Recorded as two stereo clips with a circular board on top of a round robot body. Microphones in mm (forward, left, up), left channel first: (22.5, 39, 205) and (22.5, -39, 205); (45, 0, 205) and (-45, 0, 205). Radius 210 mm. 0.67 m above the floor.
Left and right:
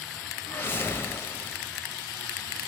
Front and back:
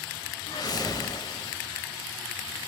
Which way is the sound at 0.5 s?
30° left.